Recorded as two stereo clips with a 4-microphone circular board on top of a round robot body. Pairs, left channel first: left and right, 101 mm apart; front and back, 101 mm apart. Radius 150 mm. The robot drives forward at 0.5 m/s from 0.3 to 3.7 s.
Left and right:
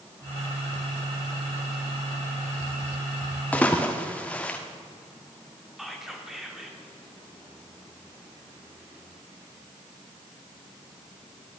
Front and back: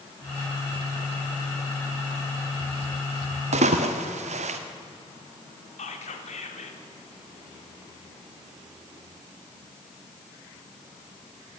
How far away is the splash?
About 1.1 m.